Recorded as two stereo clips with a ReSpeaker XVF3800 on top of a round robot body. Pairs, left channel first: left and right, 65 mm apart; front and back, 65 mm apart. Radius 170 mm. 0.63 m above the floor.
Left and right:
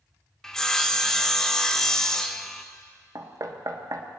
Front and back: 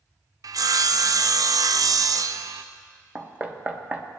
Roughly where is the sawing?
Behind.